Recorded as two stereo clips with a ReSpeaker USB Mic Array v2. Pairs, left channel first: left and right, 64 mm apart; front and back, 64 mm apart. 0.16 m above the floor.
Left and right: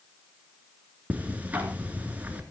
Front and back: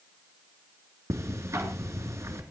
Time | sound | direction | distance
1.1 | ticking | 150° right | 2.5 m